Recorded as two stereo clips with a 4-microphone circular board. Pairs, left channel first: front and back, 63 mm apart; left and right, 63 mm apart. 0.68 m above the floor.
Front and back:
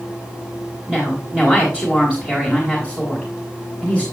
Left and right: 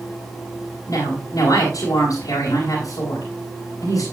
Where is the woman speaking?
105° left, 4 m.